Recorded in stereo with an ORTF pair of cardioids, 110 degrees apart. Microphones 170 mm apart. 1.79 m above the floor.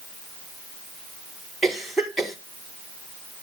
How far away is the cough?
About 4.5 m.